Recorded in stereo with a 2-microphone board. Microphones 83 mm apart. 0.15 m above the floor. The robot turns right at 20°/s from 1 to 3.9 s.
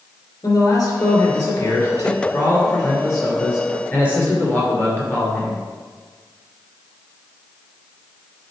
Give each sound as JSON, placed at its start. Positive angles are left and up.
{"t": 0.4, "sound": "a man speaking", "azimuth_deg": 85, "distance_m": 2.5}